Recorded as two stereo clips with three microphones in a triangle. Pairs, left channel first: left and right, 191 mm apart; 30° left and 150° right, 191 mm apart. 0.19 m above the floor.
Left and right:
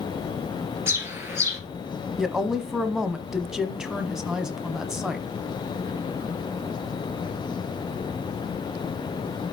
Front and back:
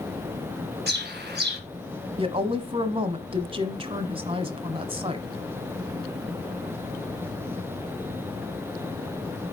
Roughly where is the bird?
Behind.